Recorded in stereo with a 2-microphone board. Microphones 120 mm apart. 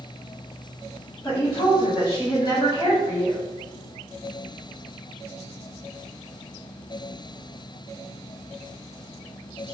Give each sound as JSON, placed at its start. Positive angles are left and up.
{"t": 1.2, "sound": "a woman speaking", "side_deg": 40, "distance_m": 1.5}